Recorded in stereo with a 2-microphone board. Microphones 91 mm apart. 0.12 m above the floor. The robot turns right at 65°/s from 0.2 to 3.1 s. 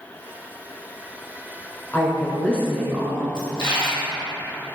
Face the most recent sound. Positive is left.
turn(degrees=60)  # may be behind; listen again after turning